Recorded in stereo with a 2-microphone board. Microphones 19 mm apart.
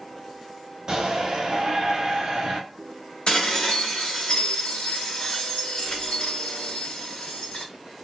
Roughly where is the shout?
Right.